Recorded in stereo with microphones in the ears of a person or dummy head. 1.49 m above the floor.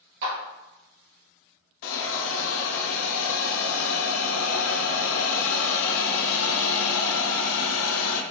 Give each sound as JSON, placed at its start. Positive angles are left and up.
{"t": 0.2, "sound": "a clap", "side_deg": -75, "distance_m": 2.0}
{"t": 1.8, "sound": "a hiss", "side_deg": 75, "distance_m": 0.5}